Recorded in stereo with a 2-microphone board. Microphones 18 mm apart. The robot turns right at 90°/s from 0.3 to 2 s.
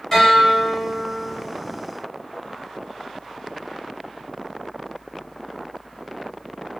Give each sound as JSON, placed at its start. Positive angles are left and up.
{"t": 0.1, "sound": "a guitar", "azimuth_deg": 165, "distance_m": 1.3}